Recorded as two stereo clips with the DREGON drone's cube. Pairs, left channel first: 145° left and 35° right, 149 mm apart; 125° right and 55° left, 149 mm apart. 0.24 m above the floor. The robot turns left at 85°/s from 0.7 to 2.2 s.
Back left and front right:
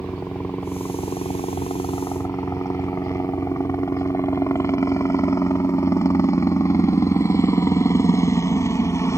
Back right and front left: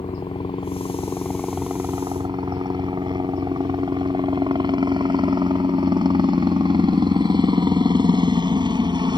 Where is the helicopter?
145° right; by 9.2 s 90° left.